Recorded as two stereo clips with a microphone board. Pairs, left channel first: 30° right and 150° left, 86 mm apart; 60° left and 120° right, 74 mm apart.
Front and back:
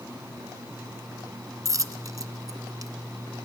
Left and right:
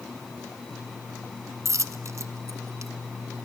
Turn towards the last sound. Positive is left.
turn(degrees=-165)